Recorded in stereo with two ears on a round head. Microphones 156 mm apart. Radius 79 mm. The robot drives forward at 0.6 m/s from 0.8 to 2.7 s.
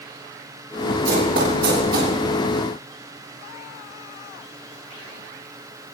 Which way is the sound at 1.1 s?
65° right (ahead or behind).